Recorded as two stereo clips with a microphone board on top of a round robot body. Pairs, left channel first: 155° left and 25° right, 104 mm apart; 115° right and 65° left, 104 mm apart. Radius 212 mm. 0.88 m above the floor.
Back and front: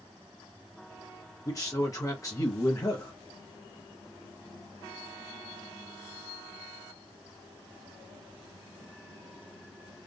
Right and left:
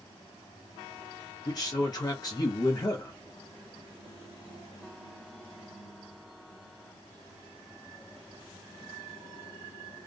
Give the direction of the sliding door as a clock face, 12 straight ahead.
No sliding door in this recording.